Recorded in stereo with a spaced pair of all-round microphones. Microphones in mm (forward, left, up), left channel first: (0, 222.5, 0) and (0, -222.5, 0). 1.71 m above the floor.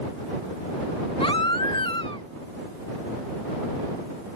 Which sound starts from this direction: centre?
A baby crying, at 1.2 s.